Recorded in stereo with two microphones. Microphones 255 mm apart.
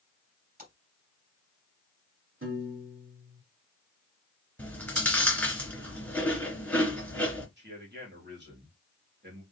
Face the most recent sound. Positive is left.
turn(degrees=-45)  # may be behind; listen again after turning